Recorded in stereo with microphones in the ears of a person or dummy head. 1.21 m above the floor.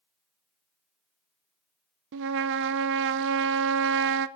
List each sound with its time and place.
2.1 s a trumpet: 65° right (ahead or behind), 0.5 m